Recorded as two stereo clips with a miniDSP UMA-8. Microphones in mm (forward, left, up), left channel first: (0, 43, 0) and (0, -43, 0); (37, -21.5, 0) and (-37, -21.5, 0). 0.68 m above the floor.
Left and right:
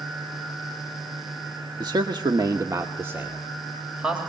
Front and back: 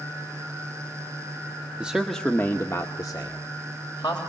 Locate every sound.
1.8 s a man speaking: 110° right, 1.3 m; by 4.2 s 15° right, 3.5 m